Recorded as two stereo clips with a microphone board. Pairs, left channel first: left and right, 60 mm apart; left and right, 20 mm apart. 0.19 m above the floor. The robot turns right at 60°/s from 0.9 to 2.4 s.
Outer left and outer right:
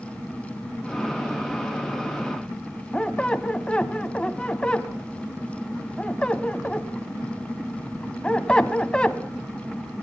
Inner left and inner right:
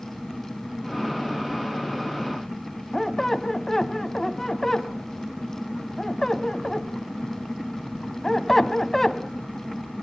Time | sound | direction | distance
2.9 | a squeak | 15° left (ahead or behind) | 0.9 m